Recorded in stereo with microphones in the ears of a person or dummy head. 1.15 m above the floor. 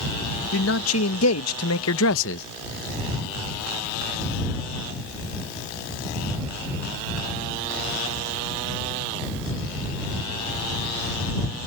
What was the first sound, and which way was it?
A man speaking, 75° left (ahead or behind).